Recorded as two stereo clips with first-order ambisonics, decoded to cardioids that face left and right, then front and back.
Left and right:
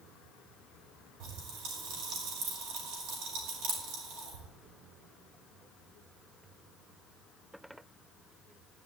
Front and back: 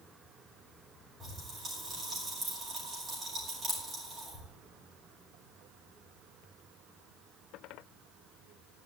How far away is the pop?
About 6.5 m.